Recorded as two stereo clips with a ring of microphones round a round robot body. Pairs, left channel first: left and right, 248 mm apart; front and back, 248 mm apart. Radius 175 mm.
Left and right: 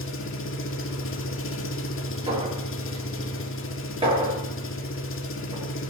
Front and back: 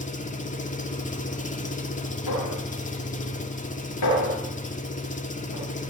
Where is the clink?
25° right, 9.5 m.